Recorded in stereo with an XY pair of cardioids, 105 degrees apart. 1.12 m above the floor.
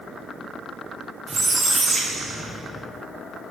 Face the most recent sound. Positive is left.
turn(degrees=-50)